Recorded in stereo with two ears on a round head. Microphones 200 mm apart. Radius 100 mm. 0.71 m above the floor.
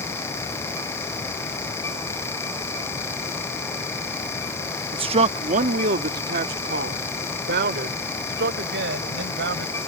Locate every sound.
4.9 s a man speaking: 20° right (ahead or behind); by 9.8 s 50° right (ahead or behind)